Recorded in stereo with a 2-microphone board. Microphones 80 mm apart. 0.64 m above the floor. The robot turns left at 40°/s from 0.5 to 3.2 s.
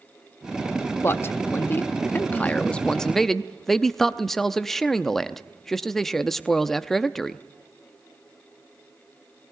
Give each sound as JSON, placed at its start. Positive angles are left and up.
{"t": 1.0, "sound": "a man speaking", "azimuth_deg": 95, "distance_m": 0.6}